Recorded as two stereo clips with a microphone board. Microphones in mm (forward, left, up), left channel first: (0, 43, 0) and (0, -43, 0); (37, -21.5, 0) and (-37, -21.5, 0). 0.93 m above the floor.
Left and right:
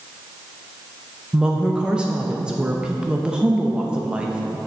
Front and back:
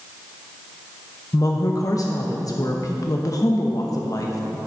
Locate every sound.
1.3 s a woman speaking: 15° right, 0.7 m